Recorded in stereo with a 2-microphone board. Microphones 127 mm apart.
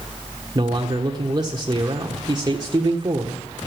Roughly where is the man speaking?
Right.